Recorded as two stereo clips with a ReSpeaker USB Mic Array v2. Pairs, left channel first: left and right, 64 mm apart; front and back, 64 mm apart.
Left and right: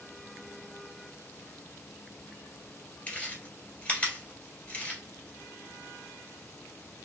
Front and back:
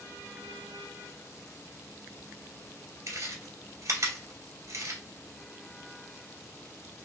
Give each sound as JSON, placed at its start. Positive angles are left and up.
{"t": 3.1, "sound": "chewing", "azimuth_deg": 155, "distance_m": 1.6}